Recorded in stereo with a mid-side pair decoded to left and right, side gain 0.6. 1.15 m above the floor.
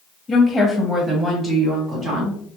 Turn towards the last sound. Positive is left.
turn(degrees=-40)